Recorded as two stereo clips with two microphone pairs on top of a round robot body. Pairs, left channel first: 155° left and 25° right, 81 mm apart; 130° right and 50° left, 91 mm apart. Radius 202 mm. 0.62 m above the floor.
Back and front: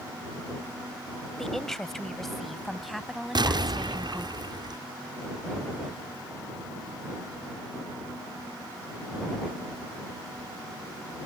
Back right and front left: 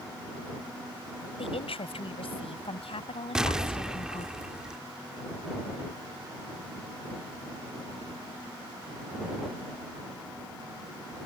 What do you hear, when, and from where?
1.4 s a woman speaking: 120° right; by 4.3 s 110° right
3.4 s an explosion: 30° right